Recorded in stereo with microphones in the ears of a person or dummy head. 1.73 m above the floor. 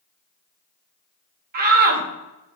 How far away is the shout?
About 2.0 m.